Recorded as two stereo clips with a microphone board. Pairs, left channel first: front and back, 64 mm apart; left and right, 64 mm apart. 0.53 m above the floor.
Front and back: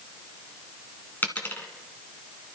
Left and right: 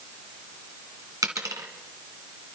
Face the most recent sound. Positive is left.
turn(degrees=-65)